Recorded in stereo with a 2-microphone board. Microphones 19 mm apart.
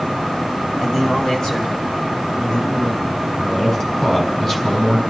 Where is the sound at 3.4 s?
30° left (ahead or behind), 3 m.